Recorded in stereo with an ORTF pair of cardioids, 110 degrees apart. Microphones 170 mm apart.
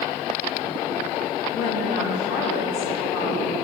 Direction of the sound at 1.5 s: 60° left.